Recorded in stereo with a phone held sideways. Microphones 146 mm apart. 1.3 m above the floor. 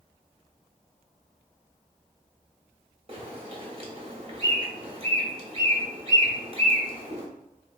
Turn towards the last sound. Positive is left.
turn(degrees=-45)  # may be behind; listen again after turning